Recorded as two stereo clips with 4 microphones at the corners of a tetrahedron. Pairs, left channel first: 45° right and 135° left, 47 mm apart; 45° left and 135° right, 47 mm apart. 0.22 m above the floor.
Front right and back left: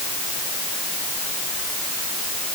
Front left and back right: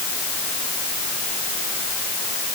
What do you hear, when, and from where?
Only background noise.